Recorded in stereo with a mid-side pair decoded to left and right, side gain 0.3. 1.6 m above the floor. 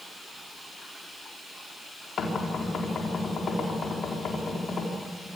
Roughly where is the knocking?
Left.